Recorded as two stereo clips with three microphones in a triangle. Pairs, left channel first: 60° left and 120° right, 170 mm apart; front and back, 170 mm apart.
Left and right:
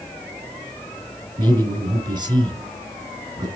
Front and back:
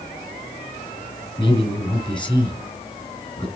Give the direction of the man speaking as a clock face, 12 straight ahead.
2 o'clock.